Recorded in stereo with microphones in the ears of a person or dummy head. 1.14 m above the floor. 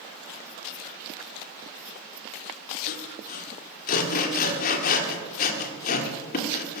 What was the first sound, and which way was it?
Sawing, 55° left (ahead or behind).